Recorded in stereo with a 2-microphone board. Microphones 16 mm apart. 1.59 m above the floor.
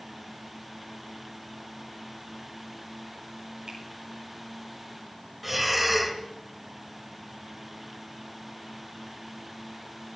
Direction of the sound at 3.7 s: 65° right (ahead or behind).